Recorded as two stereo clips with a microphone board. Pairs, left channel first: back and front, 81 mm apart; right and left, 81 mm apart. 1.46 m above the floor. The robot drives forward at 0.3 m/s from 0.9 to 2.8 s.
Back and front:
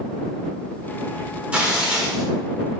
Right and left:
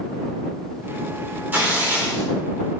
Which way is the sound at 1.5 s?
55° left.